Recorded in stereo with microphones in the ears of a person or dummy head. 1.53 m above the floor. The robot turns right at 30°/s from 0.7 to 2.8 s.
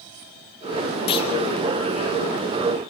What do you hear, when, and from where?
1.1 s a clunk: 40° left (ahead or behind), 1.0 m; by 1.3 s 35° left (ahead or behind), 1.0 m